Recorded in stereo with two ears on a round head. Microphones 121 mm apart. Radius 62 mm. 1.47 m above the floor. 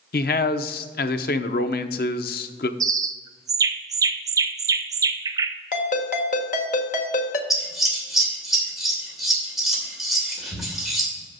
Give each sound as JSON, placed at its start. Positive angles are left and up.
{"t": 0.1, "sound": "a man speaking", "side_deg": 80, "distance_m": 0.7}
{"t": 2.8, "sound": "a bird", "side_deg": -25, "distance_m": 0.6}
{"t": 5.7, "sound": "a ringtone", "side_deg": 65, "distance_m": 1.4}
{"t": 7.5, "sound": "scissors", "side_deg": 0, "distance_m": 2.5}